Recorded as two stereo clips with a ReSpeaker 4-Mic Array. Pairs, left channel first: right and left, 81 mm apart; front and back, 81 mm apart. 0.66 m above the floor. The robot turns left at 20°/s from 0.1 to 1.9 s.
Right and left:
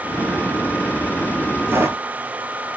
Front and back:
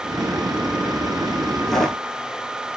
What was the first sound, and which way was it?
Footsteps, 80° left.